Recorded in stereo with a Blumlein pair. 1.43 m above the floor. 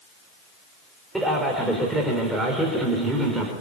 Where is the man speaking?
5° right, 5 m.